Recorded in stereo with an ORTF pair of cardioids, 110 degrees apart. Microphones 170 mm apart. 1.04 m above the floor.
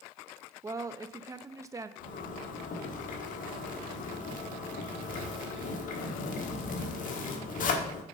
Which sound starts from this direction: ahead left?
A zipper, at 2.0 s.